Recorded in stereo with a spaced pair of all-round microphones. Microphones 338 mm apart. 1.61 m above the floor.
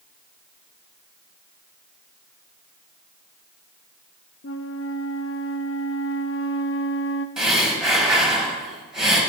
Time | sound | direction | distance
4.4 | a flute | 40° left (ahead or behind) | 0.5 m
7.4 | breathing | centre (ahead or behind) | 2.5 m